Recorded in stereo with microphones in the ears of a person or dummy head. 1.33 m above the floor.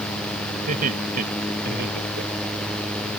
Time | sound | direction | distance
0.7 | laughter | 40° right (ahead or behind) | ?